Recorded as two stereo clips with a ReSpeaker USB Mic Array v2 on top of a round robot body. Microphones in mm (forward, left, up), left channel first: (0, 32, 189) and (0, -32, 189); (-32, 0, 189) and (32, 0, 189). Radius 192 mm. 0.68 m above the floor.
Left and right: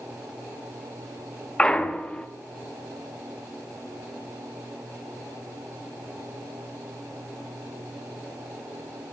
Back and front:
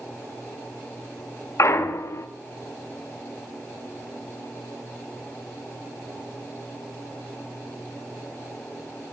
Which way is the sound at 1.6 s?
160° left.